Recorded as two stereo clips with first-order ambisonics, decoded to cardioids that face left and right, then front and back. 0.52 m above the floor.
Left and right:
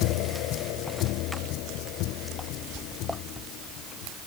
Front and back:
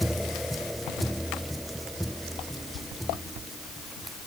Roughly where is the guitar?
I don't hear a guitar.